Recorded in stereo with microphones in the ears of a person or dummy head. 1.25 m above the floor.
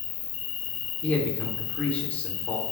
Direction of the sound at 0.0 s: 30° left (ahead or behind).